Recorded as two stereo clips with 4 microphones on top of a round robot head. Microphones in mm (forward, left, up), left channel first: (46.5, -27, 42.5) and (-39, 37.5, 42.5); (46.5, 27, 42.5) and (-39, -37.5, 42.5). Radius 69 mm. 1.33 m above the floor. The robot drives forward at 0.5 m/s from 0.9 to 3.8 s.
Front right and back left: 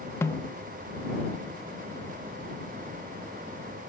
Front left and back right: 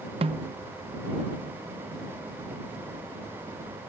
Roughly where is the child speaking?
I don't hear a child speaking.